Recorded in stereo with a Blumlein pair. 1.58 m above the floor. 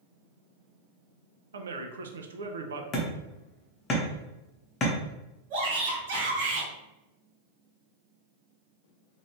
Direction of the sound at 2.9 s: 25° left.